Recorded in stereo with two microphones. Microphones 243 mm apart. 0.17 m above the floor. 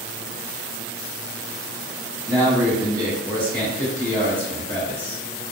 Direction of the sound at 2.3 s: 10° left (ahead or behind).